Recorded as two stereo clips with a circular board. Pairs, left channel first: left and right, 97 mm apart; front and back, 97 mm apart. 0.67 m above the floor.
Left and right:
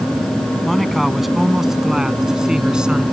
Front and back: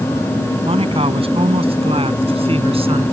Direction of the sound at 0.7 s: Straight behind.